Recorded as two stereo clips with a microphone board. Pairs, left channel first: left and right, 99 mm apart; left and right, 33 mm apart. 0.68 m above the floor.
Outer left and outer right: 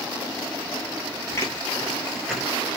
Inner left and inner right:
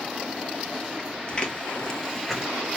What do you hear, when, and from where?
1.3 s footsteps: 30° left (ahead or behind), 1.1 m; by 2.5 s 5° right (ahead or behind), 0.9 m